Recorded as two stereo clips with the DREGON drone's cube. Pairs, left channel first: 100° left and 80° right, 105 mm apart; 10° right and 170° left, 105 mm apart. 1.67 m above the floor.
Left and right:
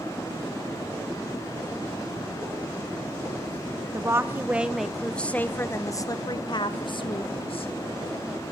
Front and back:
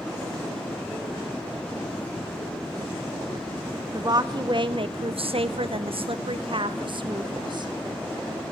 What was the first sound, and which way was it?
A woman speaking, 140° right.